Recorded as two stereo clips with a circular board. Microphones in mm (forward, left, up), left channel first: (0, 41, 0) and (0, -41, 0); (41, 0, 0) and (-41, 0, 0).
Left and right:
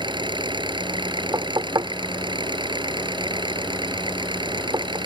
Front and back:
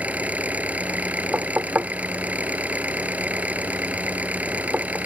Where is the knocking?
115° right.